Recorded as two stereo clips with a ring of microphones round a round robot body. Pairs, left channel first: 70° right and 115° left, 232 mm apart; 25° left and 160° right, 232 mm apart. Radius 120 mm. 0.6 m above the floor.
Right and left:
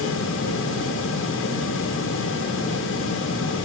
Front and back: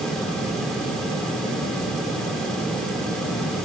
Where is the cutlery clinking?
No cutlery clinking in this recording.